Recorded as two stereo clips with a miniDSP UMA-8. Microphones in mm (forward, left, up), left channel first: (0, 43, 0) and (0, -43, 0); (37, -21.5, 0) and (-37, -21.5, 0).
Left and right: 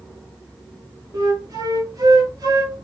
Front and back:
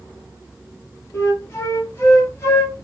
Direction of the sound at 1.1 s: 50° right.